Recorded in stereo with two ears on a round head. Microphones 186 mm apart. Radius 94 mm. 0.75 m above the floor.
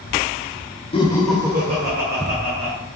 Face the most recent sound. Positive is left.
turn(degrees=-65)  # may be behind; listen again after turning